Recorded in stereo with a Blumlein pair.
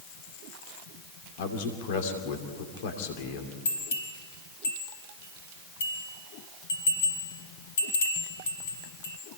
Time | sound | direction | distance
1.4 | a man speaking | 50° left | 2.5 m
3.6 | a bell | 65° left | 5.5 m